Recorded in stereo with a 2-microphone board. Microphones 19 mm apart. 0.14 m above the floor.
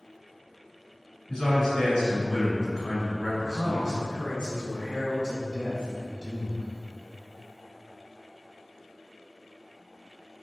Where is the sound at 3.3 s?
30° left (ahead or behind), 1.8 m.